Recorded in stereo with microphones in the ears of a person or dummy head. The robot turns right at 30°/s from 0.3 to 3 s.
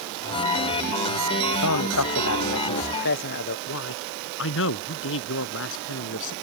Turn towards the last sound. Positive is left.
turn(degrees=70)  # may be behind; listen again after turning